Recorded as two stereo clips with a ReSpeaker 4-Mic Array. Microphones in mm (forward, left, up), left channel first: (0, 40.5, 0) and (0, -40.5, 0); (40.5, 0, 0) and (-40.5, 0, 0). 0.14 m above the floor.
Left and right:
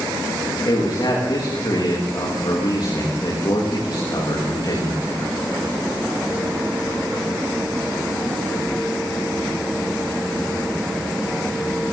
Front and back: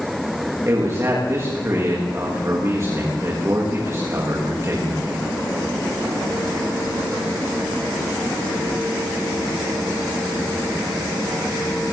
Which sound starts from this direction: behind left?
A man speaking, at 0.7 s.